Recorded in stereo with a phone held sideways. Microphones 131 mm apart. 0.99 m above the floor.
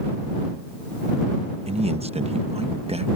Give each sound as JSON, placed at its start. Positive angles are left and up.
{"t": 1.7, "sound": "a man speaking", "side_deg": -55}